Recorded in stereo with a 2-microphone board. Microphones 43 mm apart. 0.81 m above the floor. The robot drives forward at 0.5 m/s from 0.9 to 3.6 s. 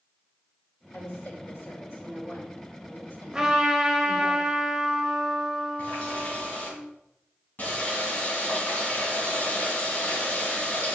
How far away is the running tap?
About 4 m.